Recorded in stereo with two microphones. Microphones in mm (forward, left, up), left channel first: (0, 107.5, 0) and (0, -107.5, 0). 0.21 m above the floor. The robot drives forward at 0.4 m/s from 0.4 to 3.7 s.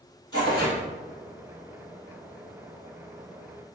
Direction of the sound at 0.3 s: 20° left (ahead or behind).